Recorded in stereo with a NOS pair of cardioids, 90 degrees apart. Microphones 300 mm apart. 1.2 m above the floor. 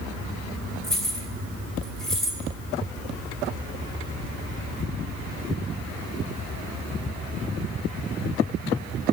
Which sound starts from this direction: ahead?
Keys jangling, at 0.8 s.